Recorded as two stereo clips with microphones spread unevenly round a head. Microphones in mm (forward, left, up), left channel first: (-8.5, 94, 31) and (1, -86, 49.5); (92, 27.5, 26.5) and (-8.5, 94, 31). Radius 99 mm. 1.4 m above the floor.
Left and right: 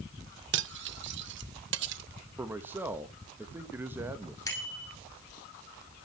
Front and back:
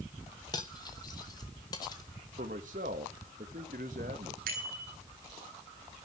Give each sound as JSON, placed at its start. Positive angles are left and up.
{"t": 0.5, "sound": "cutlery clinking", "azimuth_deg": -105, "distance_m": 0.9}
{"t": 2.4, "sound": "a man speaking", "azimuth_deg": -165, "distance_m": 1.8}
{"t": 4.5, "sound": "a bicycle bell", "azimuth_deg": 165, "distance_m": 10.0}